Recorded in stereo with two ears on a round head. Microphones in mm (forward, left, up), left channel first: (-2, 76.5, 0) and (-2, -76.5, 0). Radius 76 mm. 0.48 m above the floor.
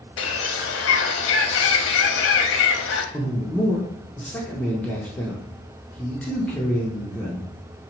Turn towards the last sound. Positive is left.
turn(degrees=10)  # may be behind; listen again after turning